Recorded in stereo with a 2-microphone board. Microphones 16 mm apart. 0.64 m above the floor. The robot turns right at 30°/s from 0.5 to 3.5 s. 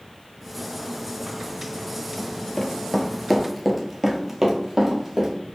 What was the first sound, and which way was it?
Running footsteps, 40° left (ahead or behind).